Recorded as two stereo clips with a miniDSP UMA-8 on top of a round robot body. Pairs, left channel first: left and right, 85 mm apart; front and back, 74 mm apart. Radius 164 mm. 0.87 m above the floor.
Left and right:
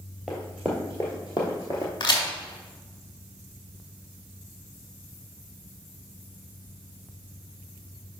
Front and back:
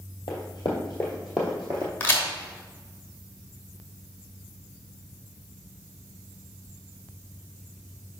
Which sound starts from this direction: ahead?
Running footsteps, at 0.3 s.